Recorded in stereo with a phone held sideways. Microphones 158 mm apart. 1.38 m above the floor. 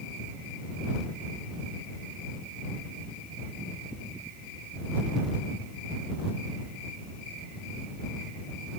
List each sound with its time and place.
Only background noise.